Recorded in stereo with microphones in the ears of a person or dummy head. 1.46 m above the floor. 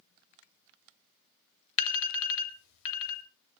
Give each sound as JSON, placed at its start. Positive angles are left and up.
{"t": 1.8, "sound": "an alarm", "side_deg": 80, "distance_m": 2.5}